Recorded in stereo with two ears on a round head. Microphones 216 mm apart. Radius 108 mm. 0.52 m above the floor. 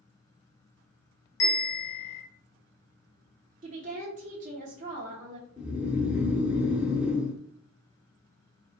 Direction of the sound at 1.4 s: 55° left (ahead or behind).